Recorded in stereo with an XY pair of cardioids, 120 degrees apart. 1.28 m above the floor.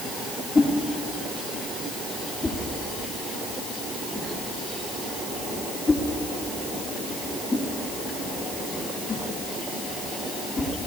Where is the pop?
I don't hear a pop.